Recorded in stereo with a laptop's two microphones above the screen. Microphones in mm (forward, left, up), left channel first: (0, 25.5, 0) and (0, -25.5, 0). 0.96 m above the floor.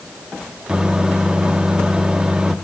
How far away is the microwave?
About 1.0 m.